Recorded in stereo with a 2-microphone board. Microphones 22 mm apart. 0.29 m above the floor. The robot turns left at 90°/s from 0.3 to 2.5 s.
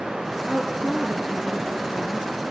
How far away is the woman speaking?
About 6.5 m.